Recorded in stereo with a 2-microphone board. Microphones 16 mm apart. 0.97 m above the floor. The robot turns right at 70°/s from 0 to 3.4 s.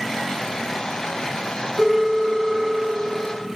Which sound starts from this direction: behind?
A phone ringing, at 1.8 s.